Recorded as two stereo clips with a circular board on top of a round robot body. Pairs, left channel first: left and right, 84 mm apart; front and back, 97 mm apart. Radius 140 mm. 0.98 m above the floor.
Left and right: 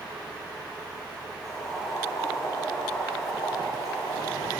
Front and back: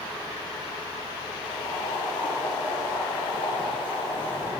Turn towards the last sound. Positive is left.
turn(degrees=40)